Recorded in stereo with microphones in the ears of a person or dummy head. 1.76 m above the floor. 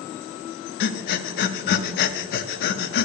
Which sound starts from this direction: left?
Breathing, at 0.8 s.